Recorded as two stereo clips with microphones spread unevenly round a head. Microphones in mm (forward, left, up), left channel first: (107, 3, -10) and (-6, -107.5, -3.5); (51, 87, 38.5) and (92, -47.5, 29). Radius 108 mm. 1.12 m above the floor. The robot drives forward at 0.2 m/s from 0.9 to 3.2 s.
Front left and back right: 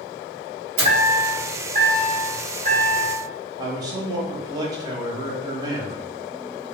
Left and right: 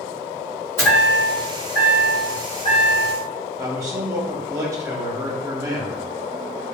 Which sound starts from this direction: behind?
A chime, at 0.8 s.